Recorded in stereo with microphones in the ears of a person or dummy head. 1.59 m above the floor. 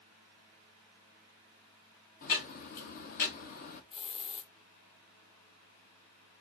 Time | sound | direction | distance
2.2 | ticking | 50° left (ahead or behind) | 1.0 m
3.9 | a hiss | 35° left (ahead or behind) | 0.7 m